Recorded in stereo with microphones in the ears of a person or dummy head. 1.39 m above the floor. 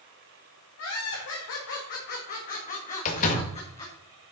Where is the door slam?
40° left (ahead or behind), 1.7 m.